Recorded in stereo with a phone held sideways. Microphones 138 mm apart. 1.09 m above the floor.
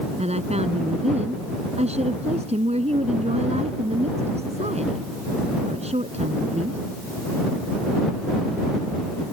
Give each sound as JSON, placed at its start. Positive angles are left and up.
{"t": 0.2, "sound": "a woman speaking", "side_deg": -50}